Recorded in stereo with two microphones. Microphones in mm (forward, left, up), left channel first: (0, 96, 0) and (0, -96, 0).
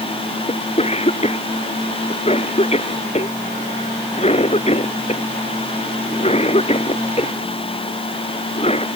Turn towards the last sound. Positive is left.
turn(degrees=30)  # may be behind; listen again after turning